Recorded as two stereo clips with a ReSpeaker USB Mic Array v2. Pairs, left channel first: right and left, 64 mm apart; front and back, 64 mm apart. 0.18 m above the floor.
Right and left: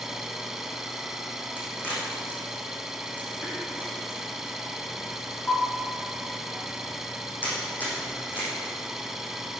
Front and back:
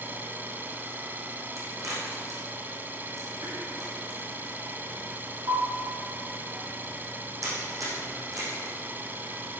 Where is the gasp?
I don't hear a gasp.